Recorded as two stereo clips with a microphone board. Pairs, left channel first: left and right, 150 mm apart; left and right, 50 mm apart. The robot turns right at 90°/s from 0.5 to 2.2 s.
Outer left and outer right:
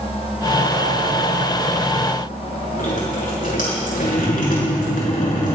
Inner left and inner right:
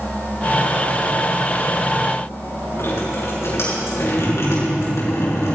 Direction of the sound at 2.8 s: 65° left (ahead or behind).